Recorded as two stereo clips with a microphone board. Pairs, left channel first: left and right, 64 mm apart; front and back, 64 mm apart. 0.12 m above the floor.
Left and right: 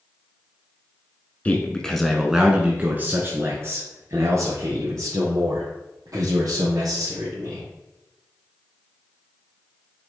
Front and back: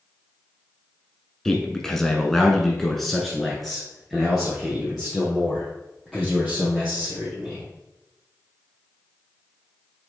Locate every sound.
1.4 s a man speaking: 70° left, 1.2 m; by 7.7 s 95° right, 4 m